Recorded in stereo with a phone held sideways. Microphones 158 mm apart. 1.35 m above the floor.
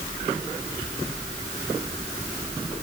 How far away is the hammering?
I don't hear hammering.